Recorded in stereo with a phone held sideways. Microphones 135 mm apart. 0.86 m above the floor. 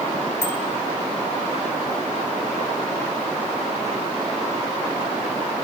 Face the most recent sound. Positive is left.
turn(degrees=15)  # may be behind; listen again after turning